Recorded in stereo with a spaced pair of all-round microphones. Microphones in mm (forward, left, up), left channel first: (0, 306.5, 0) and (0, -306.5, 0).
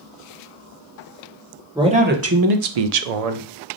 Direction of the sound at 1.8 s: 5° right (ahead or behind).